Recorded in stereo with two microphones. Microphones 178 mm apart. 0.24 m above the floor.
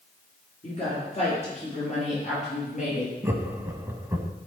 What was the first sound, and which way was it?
A woman speaking, 35° left (ahead or behind).